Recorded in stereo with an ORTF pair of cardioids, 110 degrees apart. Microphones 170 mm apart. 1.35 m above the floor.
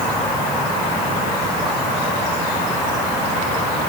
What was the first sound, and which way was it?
Only background noise.